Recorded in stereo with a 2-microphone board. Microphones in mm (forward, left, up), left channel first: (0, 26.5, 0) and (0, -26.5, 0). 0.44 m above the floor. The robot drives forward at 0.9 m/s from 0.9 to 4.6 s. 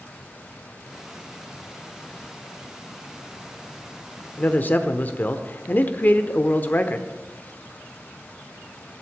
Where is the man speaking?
35° left (ahead or behind), 0.9 m.